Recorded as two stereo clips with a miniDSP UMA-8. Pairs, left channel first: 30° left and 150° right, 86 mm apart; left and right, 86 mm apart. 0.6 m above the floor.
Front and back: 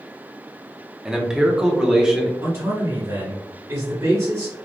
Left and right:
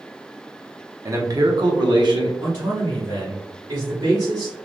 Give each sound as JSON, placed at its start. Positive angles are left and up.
{"t": 1.1, "sound": "a man speaking", "azimuth_deg": -70, "distance_m": 0.7}
{"t": 2.4, "sound": "a man speaking", "azimuth_deg": -115, "distance_m": 1.8}